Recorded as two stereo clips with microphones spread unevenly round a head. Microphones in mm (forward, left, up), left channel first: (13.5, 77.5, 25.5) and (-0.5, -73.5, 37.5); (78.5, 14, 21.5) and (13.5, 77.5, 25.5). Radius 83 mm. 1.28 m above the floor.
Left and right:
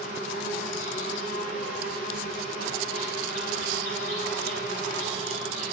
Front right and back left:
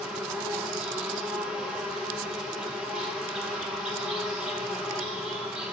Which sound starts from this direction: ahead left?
An insect, at 0.0 s.